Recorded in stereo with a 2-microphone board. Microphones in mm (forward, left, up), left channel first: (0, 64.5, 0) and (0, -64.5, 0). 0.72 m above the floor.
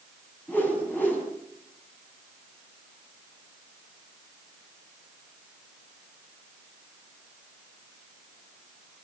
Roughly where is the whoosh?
Centre.